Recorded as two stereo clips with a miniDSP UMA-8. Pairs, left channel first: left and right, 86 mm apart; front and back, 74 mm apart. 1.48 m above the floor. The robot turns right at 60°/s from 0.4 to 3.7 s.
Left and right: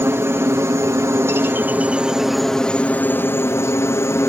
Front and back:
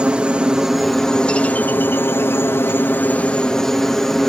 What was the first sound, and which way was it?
A helicopter, 120° right.